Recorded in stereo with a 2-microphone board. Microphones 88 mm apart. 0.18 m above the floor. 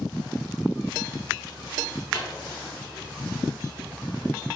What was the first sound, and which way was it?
A microwave, 35° left (ahead or behind).